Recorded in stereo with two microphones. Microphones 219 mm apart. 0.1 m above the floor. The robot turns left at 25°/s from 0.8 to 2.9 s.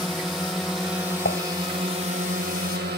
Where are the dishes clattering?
55° left (ahead or behind); by 1.4 s 60° left (ahead or behind).